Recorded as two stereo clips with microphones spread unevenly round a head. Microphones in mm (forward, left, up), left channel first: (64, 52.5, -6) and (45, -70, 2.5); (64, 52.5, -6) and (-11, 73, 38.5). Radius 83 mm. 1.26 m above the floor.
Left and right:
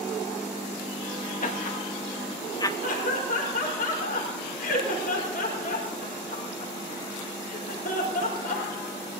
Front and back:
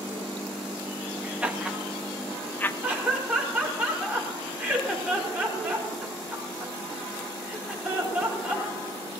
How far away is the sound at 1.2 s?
About 2.0 m.